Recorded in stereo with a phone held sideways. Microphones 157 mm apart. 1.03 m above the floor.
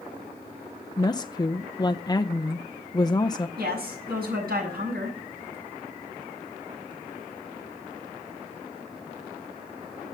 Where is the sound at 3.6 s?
85° right, 6.5 m.